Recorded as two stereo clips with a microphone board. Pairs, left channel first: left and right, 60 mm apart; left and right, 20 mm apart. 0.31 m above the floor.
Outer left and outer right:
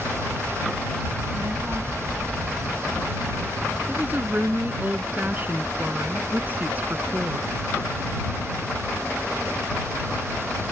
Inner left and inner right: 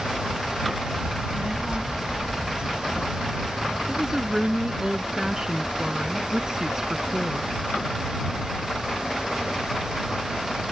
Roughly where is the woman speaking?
Right.